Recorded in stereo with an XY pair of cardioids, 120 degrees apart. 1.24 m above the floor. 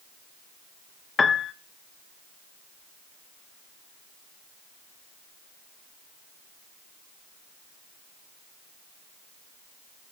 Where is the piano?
25° left, 0.8 m.